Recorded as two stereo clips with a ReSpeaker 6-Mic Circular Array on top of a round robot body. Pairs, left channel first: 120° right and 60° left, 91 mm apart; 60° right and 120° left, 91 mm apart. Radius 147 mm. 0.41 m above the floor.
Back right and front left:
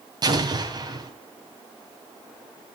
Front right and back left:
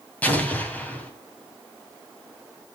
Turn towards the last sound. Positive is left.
turn(degrees=15)